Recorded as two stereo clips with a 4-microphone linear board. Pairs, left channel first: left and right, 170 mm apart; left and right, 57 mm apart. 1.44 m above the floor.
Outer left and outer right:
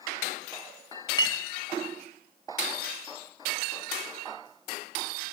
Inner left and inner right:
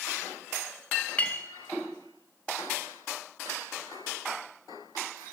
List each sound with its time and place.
1.2 s a clink: 25° left (ahead or behind), 0.9 m